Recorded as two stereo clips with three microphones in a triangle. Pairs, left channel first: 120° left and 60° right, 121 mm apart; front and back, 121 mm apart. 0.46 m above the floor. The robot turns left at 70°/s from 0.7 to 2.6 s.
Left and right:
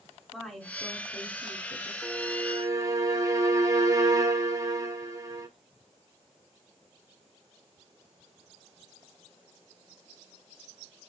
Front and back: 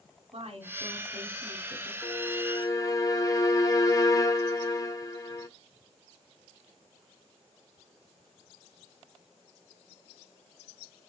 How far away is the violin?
About 1.6 m.